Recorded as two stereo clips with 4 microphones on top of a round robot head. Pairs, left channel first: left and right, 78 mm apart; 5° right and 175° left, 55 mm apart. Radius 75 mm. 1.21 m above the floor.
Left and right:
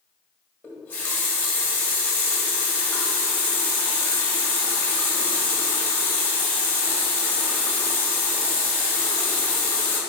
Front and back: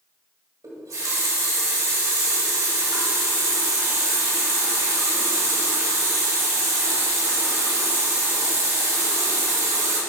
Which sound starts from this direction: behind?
A running tap, at 0.6 s.